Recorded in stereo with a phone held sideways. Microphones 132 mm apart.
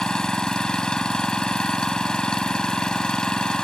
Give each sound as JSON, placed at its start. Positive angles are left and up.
{"t": 0.0, "sound": "an engine running", "side_deg": 5}